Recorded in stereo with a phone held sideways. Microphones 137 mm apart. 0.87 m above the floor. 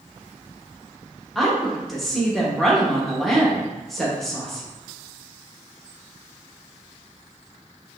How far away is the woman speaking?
About 1.2 m.